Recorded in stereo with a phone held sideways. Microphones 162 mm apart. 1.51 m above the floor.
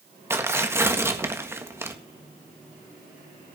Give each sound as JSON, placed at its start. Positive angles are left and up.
{"t": 0.3, "sound": "tearing paper", "side_deg": -15, "distance_m": 1.7}